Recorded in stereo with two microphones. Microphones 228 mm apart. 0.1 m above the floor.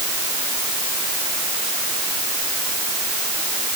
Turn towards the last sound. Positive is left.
No sound to turn to.